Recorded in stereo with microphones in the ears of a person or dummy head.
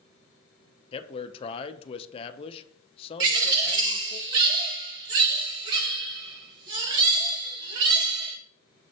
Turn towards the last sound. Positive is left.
turn(degrees=-25)  # may be behind; listen again after turning